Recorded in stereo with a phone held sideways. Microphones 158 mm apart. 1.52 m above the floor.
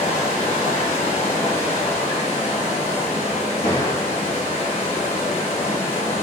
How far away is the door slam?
About 1.6 m.